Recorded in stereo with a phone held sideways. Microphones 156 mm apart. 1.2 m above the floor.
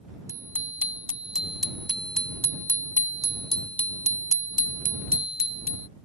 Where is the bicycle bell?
15° right (ahead or behind); by 5.9 s 75° left (ahead or behind).